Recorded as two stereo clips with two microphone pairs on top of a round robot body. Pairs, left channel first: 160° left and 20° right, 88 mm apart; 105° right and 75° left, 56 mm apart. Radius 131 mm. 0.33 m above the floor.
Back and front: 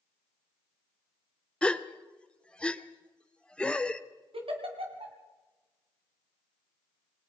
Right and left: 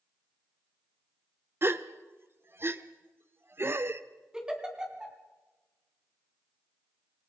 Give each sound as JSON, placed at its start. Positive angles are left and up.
{"t": 1.6, "sound": "a gasp", "azimuth_deg": 100, "distance_m": 1.1}
{"t": 4.3, "sound": "a giggle", "azimuth_deg": -5, "distance_m": 2.5}